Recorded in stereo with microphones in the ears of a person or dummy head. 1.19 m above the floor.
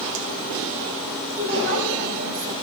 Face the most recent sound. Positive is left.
turn(degrees=-60)  # may be behind; listen again after turning